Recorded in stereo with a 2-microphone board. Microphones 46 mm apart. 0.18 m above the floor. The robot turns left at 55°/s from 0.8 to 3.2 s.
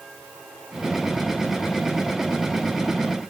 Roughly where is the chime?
No chime in this recording.